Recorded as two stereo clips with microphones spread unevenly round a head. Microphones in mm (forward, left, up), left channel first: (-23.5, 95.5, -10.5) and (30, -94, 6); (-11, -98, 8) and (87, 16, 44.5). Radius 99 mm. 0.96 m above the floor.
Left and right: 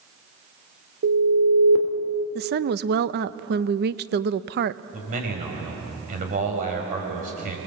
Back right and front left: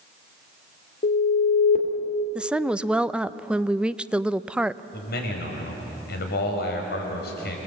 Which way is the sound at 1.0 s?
100° right.